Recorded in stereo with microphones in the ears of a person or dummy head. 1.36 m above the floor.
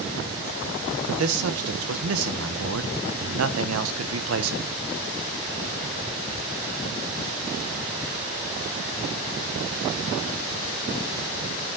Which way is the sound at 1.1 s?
75° right (ahead or behind).